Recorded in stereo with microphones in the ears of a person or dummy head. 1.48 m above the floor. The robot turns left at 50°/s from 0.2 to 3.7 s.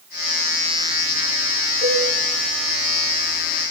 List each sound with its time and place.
1.8 s a cowbell: 35° left (ahead or behind), 10 m; by 2.0 s 25° left (ahead or behind), 10 m